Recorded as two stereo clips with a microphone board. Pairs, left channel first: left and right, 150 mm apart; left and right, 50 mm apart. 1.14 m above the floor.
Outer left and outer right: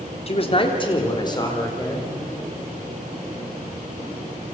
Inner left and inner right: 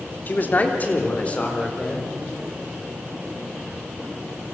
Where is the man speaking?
40° left (ahead or behind), 3 m; by 2.1 s 25° left (ahead or behind), 5.5 m.